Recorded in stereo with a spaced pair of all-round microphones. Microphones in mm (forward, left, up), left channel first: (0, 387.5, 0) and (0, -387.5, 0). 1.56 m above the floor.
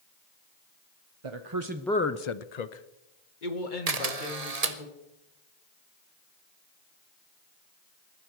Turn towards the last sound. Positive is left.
turn(degrees=-55)  # may be behind; listen again after turning